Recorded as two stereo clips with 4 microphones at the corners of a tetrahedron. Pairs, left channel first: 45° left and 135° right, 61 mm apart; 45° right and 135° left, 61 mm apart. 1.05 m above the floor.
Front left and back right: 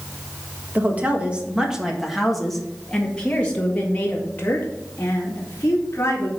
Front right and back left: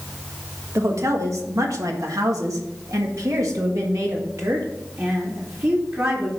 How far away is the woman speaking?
About 1.6 m.